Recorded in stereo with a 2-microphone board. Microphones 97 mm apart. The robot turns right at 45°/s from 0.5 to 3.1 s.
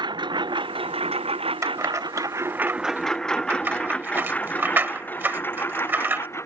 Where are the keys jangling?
30° right (ahead or behind); by 6.3 s 20° right (ahead or behind).